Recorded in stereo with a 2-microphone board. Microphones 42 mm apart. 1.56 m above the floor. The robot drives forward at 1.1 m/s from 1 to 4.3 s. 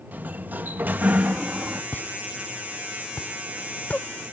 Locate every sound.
0.1 s a sliding door: 45° right (ahead or behind); by 1.8 s 30° right (ahead or behind)
1.9 s a pop: 50° left (ahead or behind); by 4.1 s 35° left (ahead or behind)